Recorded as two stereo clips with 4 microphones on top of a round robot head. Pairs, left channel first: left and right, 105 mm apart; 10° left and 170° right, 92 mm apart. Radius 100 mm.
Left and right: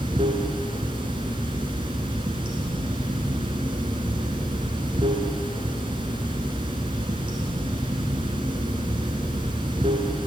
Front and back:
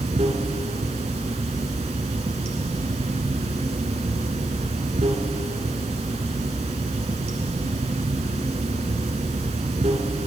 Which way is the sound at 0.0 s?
145° right.